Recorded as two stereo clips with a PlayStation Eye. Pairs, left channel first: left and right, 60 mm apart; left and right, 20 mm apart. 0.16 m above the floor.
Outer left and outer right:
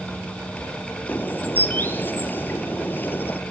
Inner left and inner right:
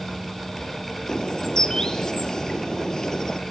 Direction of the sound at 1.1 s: 30° left (ahead or behind).